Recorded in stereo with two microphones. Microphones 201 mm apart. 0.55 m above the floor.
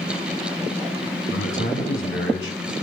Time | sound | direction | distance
1.3 | a man speaking | 75° left (ahead or behind) | 4.5 m